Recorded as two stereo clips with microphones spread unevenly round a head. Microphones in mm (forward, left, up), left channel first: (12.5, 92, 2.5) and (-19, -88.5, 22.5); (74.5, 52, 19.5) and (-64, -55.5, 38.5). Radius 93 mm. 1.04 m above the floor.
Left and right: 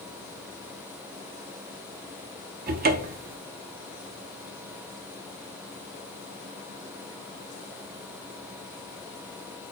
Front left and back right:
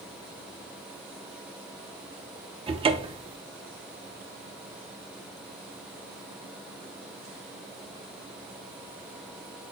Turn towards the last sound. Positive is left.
turn(degrees=-90)